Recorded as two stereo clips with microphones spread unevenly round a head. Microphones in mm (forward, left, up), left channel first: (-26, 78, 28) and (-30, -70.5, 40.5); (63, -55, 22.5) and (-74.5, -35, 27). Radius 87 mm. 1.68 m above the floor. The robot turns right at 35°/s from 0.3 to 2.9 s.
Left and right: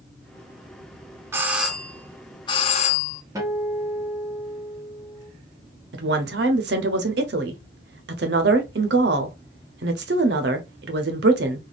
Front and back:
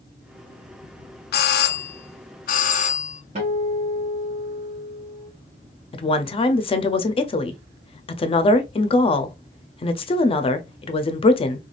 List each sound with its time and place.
1.3 s a doorbell: 15° right, 0.5 m; by 3.2 s 40° left, 0.5 m
3.4 s a guitar: 155° right, 1.3 m
5.9 s a woman speaking: 60° right, 0.6 m